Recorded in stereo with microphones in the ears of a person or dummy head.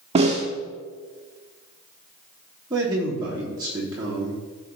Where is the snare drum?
30° right (ahead or behind), 1.5 m.